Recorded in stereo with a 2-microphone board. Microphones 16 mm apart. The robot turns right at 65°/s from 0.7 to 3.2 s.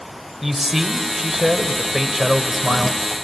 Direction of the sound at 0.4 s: 15° right (ahead or behind).